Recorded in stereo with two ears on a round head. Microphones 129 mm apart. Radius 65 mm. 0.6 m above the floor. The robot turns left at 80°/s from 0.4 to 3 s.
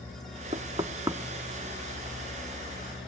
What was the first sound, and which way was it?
Knocking, 40° right (ahead or behind).